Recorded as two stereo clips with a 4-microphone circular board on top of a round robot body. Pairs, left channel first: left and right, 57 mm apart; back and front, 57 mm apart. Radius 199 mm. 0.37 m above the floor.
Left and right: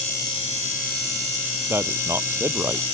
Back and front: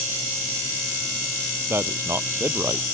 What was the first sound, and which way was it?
A man speaking, 45° right.